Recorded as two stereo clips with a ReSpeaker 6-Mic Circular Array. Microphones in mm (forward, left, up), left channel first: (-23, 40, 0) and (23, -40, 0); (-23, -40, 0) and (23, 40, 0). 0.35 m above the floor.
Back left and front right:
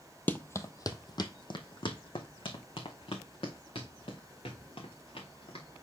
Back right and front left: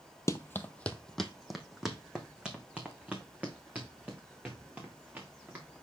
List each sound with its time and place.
0.3 s running footsteps: 170° right, 0.5 m; by 5.6 s 130° left, 3 m